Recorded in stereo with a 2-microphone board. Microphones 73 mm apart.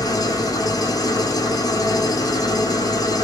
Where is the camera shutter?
No camera shutter in this recording.